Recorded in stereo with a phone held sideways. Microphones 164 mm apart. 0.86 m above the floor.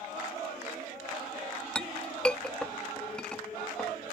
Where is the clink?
5° left (ahead or behind).